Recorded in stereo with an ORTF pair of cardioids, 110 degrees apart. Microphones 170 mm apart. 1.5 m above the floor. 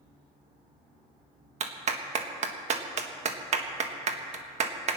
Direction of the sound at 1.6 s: 45° right.